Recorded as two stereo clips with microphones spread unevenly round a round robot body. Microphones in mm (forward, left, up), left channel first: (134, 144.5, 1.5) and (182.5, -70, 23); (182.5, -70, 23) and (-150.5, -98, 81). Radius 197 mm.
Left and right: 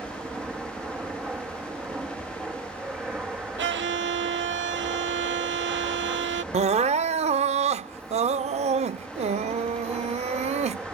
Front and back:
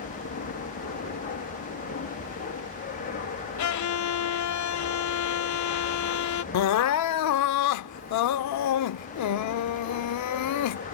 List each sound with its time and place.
0.0 s an aircraft: 5° left
3.6 s a violin: 35° right
6.5 s crying: 30° right